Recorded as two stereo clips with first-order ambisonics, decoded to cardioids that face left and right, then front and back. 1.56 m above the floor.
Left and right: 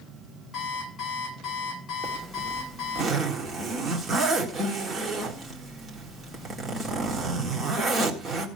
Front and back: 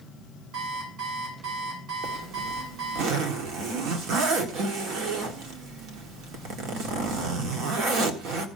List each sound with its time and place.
0.5 s an alarm clock: 145° left, 6.5 m
2.0 s a zipper: 160° right, 1.8 m